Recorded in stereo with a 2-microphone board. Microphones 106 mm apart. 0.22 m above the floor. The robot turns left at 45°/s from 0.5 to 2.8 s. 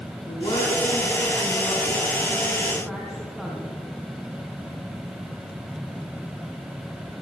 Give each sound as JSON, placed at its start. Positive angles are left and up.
{"t": 0.3, "sound": "a woman speaking", "azimuth_deg": 105, "distance_m": 2.5}